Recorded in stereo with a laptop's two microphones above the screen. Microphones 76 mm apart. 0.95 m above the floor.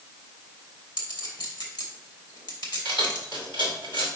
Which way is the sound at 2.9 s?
85° left.